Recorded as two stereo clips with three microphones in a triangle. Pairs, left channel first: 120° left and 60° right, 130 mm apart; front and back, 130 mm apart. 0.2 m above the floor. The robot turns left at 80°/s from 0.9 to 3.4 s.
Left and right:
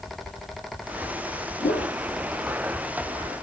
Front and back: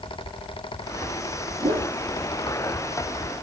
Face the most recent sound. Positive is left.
turn(degrees=-5)